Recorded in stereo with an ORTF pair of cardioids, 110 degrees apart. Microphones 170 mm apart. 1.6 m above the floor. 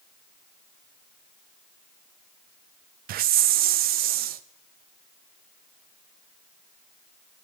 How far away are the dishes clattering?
I don't hear dishes clattering.